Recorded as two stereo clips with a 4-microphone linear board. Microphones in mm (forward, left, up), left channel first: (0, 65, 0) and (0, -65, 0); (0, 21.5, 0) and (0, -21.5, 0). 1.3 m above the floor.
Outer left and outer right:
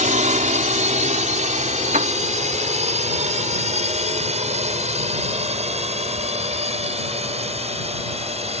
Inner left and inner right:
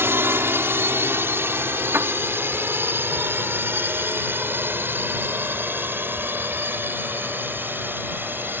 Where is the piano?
80° right.